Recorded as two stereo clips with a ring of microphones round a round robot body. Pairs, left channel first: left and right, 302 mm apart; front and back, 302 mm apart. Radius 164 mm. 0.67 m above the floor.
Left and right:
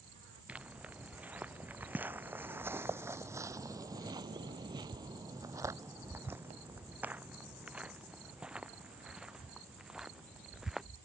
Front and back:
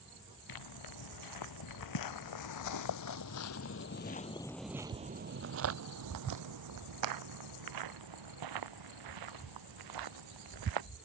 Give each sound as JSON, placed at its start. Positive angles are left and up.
{"t": 0.5, "sound": "footsteps", "azimuth_deg": -5}